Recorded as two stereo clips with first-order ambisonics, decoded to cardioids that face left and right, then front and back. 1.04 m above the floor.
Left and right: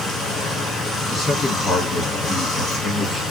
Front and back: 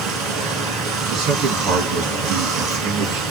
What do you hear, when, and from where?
0.0 s running water: 165° left, 1.8 m
1.1 s a man speaking: 165° left, 1.5 m